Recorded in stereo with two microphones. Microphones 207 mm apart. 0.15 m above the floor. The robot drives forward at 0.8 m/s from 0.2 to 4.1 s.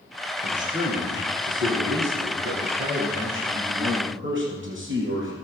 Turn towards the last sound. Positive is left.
turn(degrees=-65)  # may be behind; listen again after turning